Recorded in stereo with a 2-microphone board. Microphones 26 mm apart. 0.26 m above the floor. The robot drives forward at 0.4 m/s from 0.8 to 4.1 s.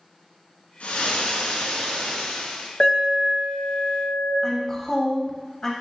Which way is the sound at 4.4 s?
25° left (ahead or behind).